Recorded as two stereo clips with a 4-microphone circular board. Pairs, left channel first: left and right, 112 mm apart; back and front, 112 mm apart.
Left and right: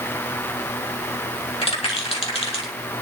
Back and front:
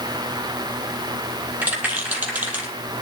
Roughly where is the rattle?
Left.